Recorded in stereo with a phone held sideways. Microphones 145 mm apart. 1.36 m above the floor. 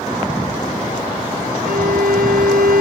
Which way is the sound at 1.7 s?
85° right.